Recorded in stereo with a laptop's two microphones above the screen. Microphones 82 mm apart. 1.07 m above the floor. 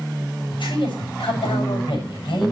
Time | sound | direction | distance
0.5 | a man speaking | 80° left | 7 m